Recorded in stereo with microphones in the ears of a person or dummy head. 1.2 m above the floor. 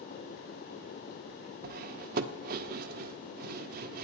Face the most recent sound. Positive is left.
turn(degrees=-55)  # may be behind; listen again after turning